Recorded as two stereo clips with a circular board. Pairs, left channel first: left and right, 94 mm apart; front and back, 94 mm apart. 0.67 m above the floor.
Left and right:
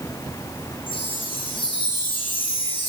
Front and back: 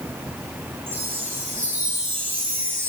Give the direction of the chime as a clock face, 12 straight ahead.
8 o'clock.